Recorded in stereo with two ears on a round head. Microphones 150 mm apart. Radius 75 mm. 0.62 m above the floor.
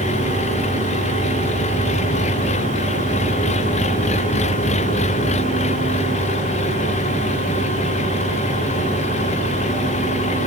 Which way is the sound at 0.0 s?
40° left (ahead or behind).